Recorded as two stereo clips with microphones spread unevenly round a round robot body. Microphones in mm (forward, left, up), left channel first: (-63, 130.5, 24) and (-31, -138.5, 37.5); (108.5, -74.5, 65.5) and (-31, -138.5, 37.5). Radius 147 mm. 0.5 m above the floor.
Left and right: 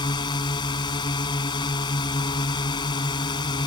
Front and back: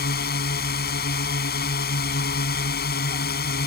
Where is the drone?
20° left.